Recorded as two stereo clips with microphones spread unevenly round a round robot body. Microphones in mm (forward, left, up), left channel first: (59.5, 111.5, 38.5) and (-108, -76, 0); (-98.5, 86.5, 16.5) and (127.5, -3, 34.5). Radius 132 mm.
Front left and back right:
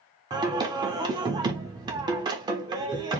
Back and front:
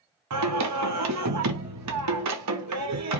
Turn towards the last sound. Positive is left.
turn(degrees=-55)